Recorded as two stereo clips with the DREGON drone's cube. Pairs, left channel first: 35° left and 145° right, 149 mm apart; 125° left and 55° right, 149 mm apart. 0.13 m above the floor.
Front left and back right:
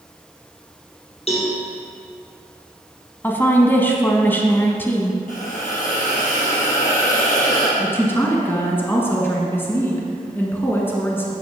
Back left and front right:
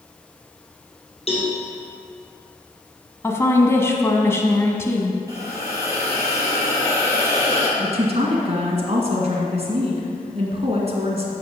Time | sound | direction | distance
1.3 | a cowbell | 80° left | 2.5 m
3.2 | a woman speaking | 85° left | 1.0 m
5.3 | a hiss | 10° left | 2.5 m
7.8 | a woman speaking | 35° right | 1.9 m